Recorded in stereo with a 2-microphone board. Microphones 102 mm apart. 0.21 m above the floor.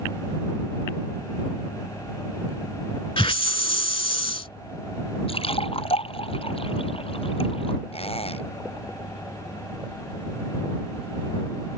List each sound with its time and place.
3.2 s a hiss: 60° left (ahead or behind)
5.3 s a splash: 65° left (ahead or behind)
7.9 s a squeak: 70° left (ahead or behind)